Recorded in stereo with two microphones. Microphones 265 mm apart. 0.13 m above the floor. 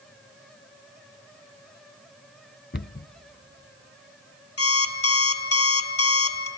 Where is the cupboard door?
45° left (ahead or behind), 0.7 m.